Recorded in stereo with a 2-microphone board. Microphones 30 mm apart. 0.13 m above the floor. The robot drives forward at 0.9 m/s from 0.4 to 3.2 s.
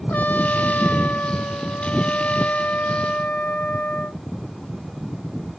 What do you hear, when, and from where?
0.1 s a trumpet: 70° left (ahead or behind); by 4.2 s 55° left (ahead or behind)